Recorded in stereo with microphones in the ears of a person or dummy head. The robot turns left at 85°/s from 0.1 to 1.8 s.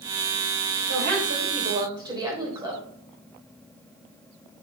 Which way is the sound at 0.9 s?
85° right.